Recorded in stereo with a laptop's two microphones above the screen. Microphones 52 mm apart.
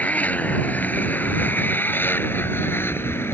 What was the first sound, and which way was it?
A motorcycle, 30° left (ahead or behind).